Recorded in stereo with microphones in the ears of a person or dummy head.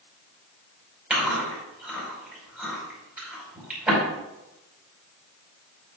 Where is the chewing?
5° right (ahead or behind), 5 m.